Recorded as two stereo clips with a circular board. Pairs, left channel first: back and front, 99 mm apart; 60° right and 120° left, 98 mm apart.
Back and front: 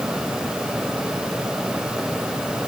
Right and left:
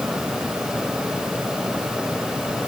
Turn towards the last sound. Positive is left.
No sound to turn to.